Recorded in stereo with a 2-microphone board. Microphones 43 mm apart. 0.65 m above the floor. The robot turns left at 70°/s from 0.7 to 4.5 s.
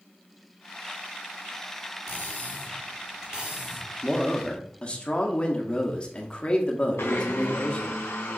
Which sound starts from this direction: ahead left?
Cutlery clinking, at 2.1 s.